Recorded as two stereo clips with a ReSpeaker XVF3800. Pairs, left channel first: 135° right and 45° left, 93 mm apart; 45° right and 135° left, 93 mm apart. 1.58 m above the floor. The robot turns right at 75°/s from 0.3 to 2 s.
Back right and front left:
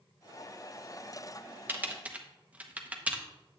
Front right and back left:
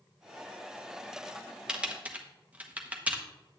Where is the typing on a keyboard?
70° left, 0.9 m; by 3.2 s 90° left, 0.9 m.